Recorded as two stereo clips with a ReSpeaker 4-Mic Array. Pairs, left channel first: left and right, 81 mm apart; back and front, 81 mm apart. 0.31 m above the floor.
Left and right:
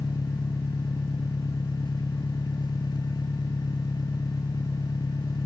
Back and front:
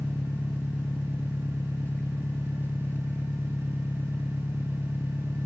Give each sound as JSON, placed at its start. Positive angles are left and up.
{"t": 0.0, "sound": "an engine running", "azimuth_deg": 115}